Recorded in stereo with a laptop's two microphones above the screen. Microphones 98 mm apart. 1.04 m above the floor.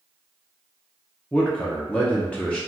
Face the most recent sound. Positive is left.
turn(degrees=15)  # may be behind; listen again after turning